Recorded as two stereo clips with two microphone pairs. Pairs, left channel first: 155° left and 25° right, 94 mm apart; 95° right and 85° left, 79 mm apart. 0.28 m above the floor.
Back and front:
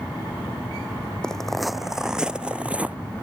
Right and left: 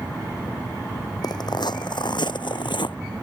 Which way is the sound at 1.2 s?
120° right.